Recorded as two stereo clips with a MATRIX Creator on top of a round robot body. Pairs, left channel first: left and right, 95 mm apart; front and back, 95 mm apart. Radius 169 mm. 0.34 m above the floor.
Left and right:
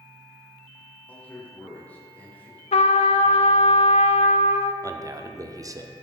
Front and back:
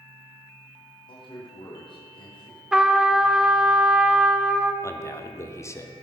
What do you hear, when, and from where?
1.1 s a man speaking: 20° left, 1.8 m
2.7 s a trumpet: 95° left, 0.5 m
4.8 s a man speaking: 50° right, 1.2 m